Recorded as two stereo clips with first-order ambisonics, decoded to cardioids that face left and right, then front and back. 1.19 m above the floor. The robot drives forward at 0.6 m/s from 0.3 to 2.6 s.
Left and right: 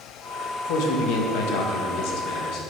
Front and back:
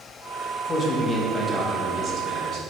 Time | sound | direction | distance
0.7 | a man speaking | 65° left | 1.2 m